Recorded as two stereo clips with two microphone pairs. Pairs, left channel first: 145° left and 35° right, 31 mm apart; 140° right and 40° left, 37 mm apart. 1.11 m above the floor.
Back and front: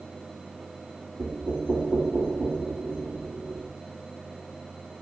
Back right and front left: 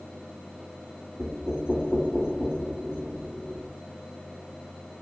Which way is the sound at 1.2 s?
40° right.